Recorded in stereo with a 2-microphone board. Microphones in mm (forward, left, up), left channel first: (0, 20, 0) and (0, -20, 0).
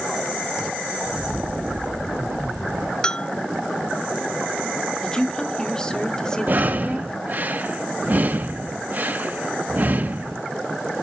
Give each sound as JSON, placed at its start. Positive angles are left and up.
{"t": 1.0, "sound": "footsteps", "side_deg": -65, "distance_m": 6.5}
{"t": 3.0, "sound": "a bell", "side_deg": 20, "distance_m": 0.7}
{"t": 5.0, "sound": "a woman speaking", "side_deg": 20, "distance_m": 3.0}
{"t": 6.5, "sound": "breathing", "side_deg": -50, "distance_m": 1.1}